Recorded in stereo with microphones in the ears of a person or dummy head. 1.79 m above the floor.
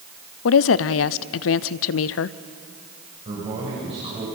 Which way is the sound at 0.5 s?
70° left (ahead or behind).